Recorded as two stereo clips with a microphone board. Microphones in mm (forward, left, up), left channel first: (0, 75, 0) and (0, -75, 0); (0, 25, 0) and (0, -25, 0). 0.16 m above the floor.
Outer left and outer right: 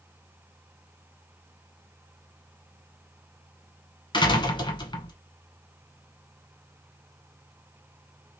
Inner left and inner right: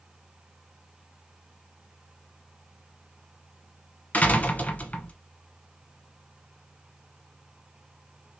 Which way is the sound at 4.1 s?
30° left (ahead or behind).